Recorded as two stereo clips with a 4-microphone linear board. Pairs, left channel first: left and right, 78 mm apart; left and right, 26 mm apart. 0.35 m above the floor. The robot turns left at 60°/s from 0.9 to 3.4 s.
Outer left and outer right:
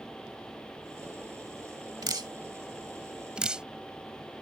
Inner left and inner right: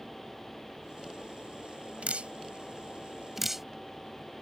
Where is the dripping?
65° right (ahead or behind); by 3.7 s 10° right (ahead or behind).